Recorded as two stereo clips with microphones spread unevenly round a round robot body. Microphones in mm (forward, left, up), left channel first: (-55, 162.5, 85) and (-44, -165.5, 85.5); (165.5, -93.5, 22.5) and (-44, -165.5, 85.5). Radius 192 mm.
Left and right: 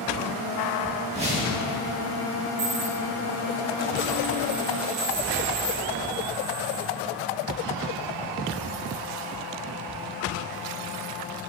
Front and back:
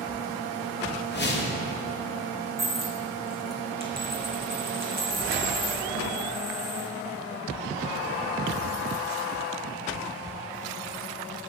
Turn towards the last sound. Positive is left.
turn(degrees=-90)